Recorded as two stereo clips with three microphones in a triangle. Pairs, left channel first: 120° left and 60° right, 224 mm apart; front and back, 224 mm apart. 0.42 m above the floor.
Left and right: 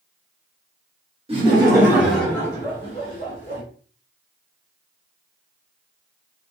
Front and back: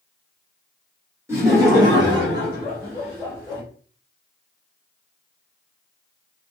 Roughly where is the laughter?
Right.